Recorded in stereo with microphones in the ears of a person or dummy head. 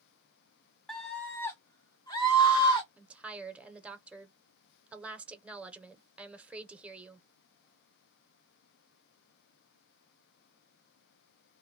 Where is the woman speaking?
5° right (ahead or behind), 0.7 m.